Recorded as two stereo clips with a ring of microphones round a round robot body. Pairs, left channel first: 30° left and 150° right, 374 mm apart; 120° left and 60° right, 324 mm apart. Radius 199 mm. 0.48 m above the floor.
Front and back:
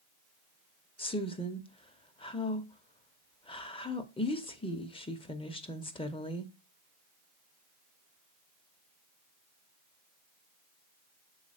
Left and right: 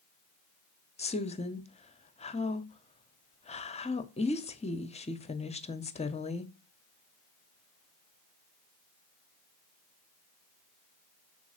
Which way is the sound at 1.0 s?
85° left.